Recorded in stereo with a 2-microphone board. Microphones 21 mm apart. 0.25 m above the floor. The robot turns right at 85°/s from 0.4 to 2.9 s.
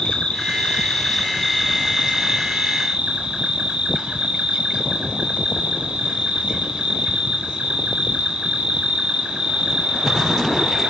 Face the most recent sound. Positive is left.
turn(degrees=-75)